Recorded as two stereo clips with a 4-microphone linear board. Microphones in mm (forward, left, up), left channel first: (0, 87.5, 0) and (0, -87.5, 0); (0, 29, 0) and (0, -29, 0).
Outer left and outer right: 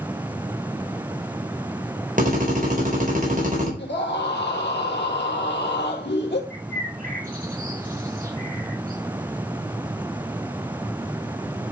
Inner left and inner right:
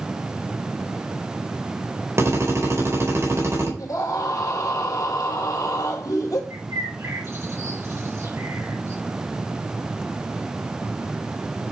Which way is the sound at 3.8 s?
80° left.